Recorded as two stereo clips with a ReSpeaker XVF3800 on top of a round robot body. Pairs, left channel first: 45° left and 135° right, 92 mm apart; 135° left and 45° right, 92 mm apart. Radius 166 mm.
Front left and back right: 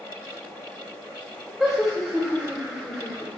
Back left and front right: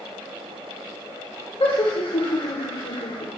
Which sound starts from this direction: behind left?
Laughter, at 1.6 s.